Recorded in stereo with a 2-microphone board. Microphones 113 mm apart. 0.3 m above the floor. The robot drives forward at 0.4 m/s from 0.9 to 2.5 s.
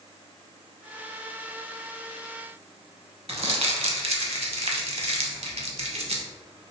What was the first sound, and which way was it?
Crumpling, 65° right (ahead or behind).